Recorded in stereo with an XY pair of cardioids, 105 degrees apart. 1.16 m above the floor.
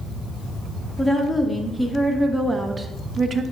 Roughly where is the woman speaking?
Ahead.